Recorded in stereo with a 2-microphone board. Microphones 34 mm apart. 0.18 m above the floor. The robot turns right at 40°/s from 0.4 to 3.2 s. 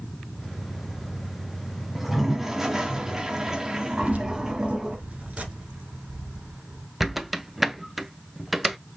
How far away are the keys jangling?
About 1.5 m.